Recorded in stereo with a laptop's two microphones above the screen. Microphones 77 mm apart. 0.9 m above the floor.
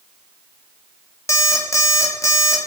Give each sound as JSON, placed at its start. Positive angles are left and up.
{"t": 1.3, "sound": "an alarm clock", "side_deg": 45, "distance_m": 0.6}